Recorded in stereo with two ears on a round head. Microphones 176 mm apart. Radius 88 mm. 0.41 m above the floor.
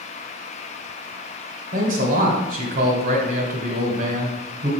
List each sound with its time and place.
1.7 s a man speaking: 45° right (ahead or behind), 1.8 m